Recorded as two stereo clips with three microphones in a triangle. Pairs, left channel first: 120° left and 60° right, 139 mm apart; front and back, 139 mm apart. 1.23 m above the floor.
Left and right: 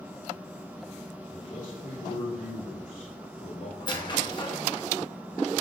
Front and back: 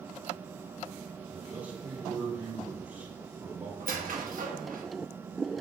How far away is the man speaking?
About 3 m.